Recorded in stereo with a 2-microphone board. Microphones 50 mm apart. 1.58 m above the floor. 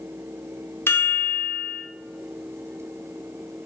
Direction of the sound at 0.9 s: 50° left (ahead or behind).